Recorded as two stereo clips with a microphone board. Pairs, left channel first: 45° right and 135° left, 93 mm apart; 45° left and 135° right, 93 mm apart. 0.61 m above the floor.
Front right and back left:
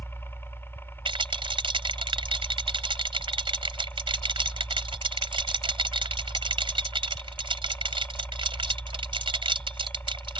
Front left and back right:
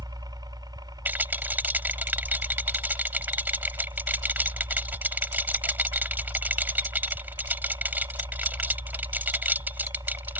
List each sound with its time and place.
0.0 s a helicopter: 105° right
1.1 s a rattle: 155° left